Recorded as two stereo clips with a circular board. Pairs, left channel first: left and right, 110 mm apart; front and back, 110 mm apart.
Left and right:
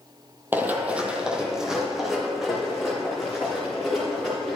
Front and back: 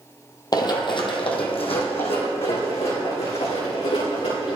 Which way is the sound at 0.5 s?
25° right.